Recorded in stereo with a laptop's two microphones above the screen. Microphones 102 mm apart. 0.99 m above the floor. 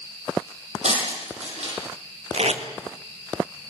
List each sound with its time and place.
0.8 s breaking glass: 85° right, 9.5 m
2.3 s tape being pulled: 80° right, 2.5 m